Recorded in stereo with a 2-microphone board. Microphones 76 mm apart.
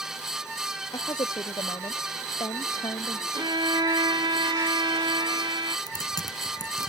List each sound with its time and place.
0.9 s a woman speaking: 70° left (ahead or behind)
3.3 s a violin: 70° right (ahead or behind)
5.9 s typing on a keyboard: 60° left (ahead or behind)